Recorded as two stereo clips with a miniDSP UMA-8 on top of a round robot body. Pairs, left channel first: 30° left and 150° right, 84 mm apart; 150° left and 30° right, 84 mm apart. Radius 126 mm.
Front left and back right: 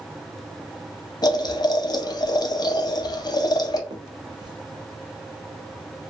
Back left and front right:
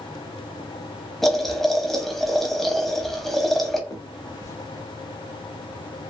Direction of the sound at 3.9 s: 165° right.